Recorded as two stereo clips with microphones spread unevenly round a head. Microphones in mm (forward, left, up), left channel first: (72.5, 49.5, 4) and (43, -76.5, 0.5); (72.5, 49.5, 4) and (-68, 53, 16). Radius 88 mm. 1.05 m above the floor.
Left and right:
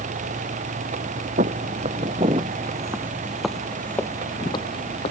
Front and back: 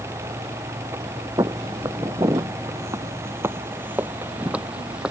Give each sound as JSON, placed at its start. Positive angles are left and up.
{"t": 1.4, "sound": "footsteps", "azimuth_deg": -115}